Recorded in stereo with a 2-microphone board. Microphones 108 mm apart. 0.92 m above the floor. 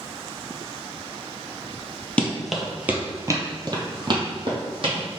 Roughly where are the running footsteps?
Centre.